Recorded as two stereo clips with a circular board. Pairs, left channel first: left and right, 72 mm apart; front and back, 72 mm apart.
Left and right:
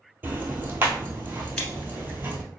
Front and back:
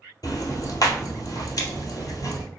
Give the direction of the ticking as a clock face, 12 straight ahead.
1 o'clock.